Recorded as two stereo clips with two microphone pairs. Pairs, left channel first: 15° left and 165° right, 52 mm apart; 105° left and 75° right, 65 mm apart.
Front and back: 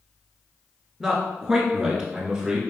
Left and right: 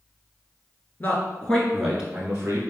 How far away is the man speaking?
About 1.2 m.